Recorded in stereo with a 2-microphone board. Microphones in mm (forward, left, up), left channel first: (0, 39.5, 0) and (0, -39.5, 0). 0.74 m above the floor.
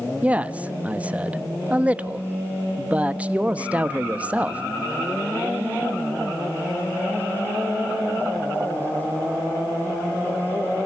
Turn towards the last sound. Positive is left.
turn(degrees=-15)  # may be behind; listen again after turning